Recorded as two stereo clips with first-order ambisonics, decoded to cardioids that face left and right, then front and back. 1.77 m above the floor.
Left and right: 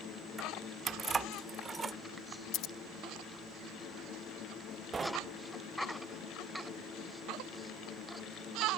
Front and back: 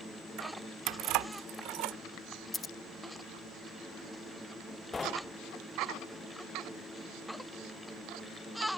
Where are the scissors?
70° left.